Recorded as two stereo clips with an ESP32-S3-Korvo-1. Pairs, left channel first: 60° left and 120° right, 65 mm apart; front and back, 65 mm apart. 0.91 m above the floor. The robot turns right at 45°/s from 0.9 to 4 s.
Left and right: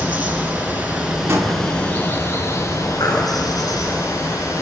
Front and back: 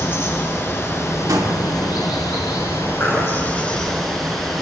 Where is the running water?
55° right, 4.5 m; by 4.6 s 85° left, 4.5 m.